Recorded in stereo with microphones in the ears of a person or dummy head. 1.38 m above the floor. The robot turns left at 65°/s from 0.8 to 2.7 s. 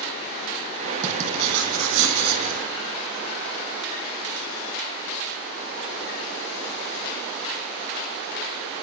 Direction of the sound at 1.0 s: 35° right.